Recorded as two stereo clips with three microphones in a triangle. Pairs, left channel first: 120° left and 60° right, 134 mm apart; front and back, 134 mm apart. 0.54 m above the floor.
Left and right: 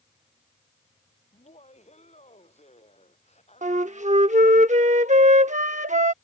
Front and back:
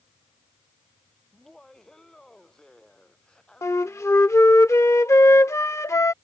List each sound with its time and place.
1.3 s laughter: 85° left; by 4.6 s 80° left
3.6 s a flute: 65° right